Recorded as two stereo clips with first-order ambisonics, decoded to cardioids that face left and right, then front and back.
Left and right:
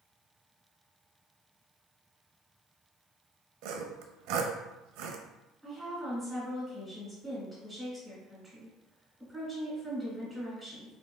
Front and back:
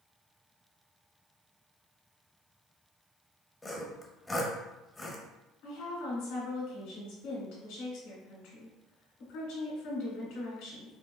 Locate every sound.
3.6 s sawing: 80° right, 0.7 m
5.6 s a woman speaking: 5° right, 2.5 m